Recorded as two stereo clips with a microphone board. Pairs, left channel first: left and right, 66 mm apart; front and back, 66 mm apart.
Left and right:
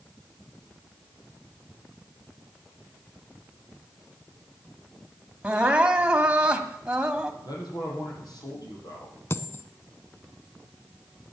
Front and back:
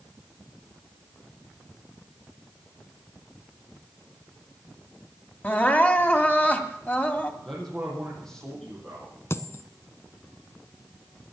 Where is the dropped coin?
45° left, 0.9 m.